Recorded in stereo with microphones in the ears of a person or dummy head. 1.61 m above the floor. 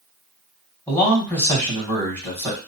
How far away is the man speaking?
About 1.7 m.